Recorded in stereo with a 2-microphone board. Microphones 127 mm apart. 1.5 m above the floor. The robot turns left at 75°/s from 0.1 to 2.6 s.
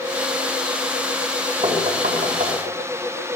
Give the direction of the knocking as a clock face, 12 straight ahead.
2 o'clock.